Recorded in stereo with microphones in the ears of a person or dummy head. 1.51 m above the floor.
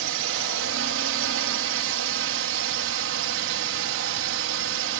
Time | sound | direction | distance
0.0 | a drone | 65° right (ahead or behind) | ?